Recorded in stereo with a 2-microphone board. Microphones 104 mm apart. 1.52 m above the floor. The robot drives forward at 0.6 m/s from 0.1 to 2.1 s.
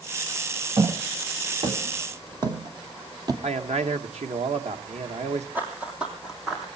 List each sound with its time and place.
0.8 s footsteps: 45° right (ahead or behind), 2 m; by 3.3 s 35° right (ahead or behind), 2.5 m
3.4 s a man speaking: 80° right, 1.6 m
5.5 s running footsteps: 15° right (ahead or behind), 3 m; by 6.7 s centre (ahead or behind), 4 m